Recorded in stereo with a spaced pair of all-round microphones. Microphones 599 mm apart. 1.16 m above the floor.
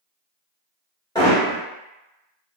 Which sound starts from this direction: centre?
Hammering, at 1.1 s.